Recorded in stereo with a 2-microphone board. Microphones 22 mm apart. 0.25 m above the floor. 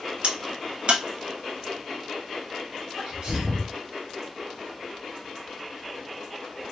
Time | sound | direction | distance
0.2 | a crack | 60° right (ahead or behind) | 0.6 m
3.0 | a sneeze | 35° right (ahead or behind) | 1.4 m